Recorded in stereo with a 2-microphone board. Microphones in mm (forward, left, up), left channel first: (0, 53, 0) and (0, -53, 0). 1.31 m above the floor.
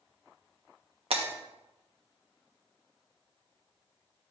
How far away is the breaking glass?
About 1.1 m.